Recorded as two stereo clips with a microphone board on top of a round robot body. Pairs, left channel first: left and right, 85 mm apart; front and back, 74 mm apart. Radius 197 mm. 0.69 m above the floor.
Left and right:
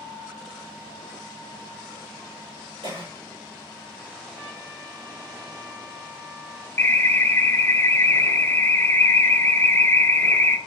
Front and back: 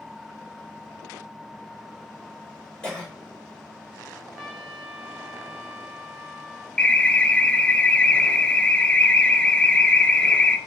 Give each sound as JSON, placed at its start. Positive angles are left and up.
{"t": 2.8, "sound": "a cough", "azimuth_deg": -75, "distance_m": 4.5}
{"t": 4.3, "sound": "a trumpet", "azimuth_deg": -80, "distance_m": 4.0}
{"t": 6.8, "sound": "an alarm", "azimuth_deg": 60, "distance_m": 1.0}